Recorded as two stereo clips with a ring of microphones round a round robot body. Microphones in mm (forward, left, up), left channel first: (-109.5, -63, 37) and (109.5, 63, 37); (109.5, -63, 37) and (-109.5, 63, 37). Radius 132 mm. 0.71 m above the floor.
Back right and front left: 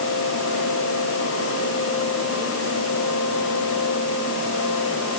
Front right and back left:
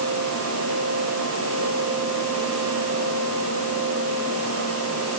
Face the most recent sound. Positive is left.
No sound to turn to.